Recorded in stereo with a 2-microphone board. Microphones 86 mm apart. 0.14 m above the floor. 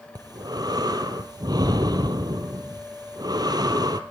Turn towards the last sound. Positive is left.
turn(degrees=-50)  # may be behind; listen again after turning